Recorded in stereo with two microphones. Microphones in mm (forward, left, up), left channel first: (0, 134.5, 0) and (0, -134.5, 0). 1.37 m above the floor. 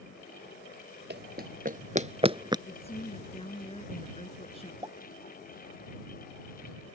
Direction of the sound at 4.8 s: 15° right (ahead or behind).